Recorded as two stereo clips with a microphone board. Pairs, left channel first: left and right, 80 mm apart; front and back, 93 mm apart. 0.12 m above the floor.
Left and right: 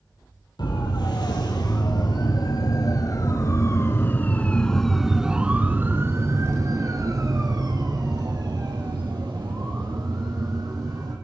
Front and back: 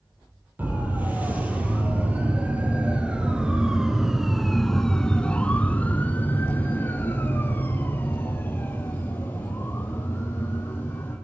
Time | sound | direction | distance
0.6 | a siren | 110° left | 5.5 m